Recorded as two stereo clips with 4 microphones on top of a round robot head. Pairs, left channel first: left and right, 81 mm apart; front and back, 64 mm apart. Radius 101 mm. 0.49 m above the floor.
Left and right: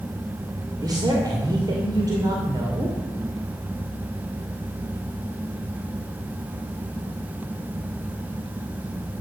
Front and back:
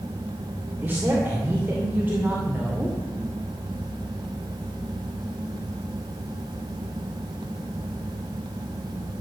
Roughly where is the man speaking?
Behind right.